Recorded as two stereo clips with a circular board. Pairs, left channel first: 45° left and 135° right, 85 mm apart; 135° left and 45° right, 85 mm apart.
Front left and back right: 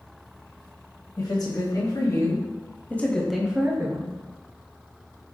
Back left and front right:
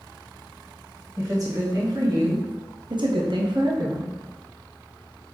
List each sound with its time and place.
1.2 s a woman speaking: 5° left, 1.5 m; by 4.2 s 90° right, 0.7 m